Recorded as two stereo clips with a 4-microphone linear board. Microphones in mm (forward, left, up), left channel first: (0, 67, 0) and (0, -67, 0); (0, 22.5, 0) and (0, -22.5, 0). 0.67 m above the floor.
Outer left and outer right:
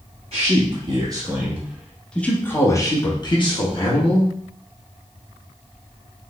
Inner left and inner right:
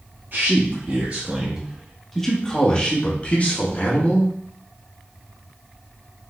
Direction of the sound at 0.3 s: 45° right (ahead or behind).